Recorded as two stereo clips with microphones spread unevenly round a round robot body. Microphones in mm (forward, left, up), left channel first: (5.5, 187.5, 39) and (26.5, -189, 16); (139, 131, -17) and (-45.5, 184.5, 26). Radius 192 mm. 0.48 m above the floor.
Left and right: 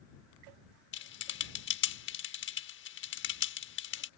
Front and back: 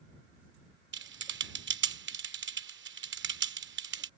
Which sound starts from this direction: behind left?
Typing on a keyboard, at 0.9 s.